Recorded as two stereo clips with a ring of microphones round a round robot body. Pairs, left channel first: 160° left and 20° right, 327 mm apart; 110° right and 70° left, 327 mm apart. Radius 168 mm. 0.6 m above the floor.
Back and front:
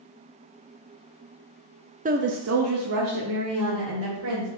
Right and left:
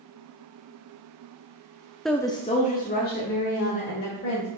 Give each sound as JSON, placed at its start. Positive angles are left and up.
{"t": 2.0, "sound": "a woman speaking", "azimuth_deg": -25, "distance_m": 0.6}